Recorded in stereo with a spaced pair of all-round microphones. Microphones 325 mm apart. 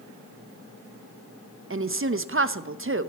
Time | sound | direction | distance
1.7 | a woman speaking | 40° right (ahead or behind) | 0.6 m